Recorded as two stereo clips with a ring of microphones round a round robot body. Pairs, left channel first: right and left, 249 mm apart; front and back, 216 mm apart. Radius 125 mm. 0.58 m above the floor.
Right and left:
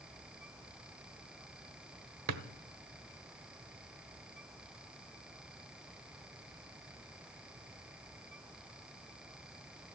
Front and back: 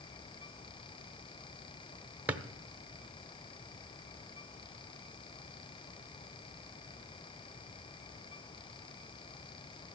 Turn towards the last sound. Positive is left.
turn(degrees=95)